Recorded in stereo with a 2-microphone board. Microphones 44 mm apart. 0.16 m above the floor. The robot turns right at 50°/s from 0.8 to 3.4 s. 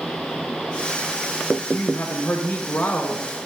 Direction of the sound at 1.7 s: 60° left.